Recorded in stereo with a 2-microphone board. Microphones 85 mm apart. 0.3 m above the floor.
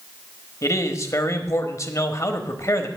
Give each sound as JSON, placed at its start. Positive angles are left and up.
{"t": 0.6, "sound": "a man speaking", "side_deg": 40, "distance_m": 1.0}